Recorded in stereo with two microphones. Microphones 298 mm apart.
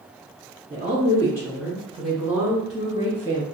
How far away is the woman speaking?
About 1.5 m.